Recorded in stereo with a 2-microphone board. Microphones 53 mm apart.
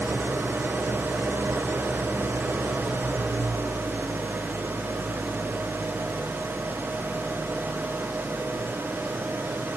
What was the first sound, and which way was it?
An engine running, 45° right (ahead or behind).